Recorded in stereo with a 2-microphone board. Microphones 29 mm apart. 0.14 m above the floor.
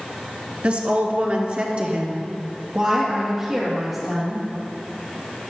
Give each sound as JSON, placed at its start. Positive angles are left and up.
{"t": 0.6, "sound": "a woman speaking", "side_deg": -50, "distance_m": 1.7}